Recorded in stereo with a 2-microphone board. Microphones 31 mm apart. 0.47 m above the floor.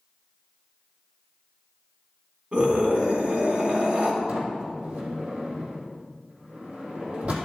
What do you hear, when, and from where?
2.5 s a scream: 45° right (ahead or behind), 4 m
4.3 s a sliding door: 55° right (ahead or behind), 3.5 m